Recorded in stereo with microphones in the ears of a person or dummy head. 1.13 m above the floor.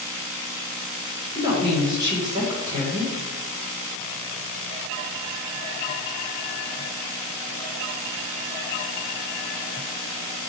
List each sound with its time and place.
1.4 s a woman speaking: 20° right (ahead or behind), 1.1 m